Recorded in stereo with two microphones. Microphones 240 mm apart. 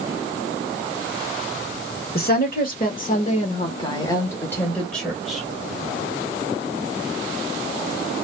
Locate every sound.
2.1 s a woman speaking: 40° left (ahead or behind), 1.7 m; by 5.4 s centre (ahead or behind), 2 m